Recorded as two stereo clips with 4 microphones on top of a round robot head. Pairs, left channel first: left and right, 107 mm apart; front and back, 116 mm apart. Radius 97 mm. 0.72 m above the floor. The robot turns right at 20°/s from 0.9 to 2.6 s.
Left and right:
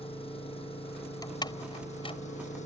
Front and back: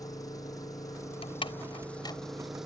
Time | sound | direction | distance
0.0 | an engine running | 60° left | ?
1.2 | a door slam | 35° left | ?